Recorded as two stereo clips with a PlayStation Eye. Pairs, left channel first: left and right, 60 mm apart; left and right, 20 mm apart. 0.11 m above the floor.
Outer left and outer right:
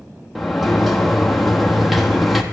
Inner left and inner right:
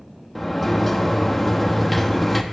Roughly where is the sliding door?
Centre.